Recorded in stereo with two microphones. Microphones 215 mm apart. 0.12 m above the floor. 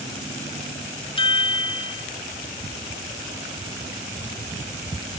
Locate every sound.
1.2 s a chime: 25° left (ahead or behind), 0.7 m